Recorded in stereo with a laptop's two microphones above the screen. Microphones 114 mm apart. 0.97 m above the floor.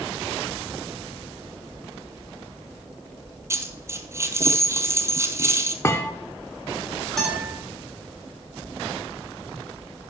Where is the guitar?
5° left (ahead or behind), 5 m.